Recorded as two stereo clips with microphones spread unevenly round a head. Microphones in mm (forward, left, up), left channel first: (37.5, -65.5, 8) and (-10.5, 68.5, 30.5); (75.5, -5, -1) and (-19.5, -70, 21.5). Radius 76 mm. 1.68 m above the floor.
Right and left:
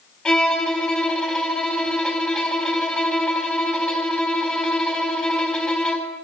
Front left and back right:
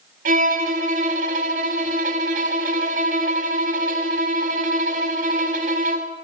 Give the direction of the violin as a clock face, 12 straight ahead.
5 o'clock.